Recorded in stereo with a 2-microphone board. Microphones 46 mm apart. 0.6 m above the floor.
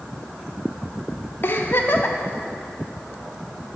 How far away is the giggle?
About 0.6 m.